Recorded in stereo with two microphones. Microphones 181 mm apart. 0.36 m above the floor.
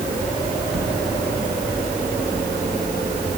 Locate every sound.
Only background noise.